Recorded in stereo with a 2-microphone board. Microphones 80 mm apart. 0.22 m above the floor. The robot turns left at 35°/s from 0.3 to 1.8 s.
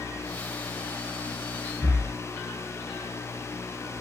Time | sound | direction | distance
1.8 | breathing | 35° left (ahead or behind) | 3 m